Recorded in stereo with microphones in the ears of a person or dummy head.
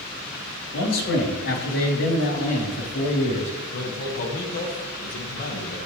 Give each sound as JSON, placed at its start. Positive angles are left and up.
{"t": 0.7, "sound": "a man speaking", "side_deg": 80, "distance_m": 3.5}
{"t": 3.7, "sound": "a man speaking", "side_deg": 50, "distance_m": 1.6}